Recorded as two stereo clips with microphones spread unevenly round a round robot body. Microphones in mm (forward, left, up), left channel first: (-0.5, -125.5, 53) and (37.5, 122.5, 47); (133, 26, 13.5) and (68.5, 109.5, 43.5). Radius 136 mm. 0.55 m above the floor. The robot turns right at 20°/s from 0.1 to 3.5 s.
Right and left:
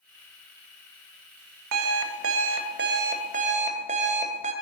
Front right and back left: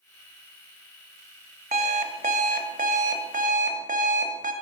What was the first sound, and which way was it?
An alarm clock, 110° left.